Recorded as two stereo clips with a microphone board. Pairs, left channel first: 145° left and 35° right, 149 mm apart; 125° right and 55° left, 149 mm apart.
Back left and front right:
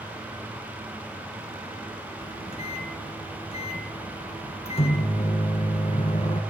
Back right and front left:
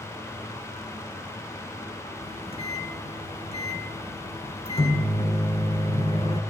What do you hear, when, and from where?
2.2 s a microwave: 170° right, 3.5 m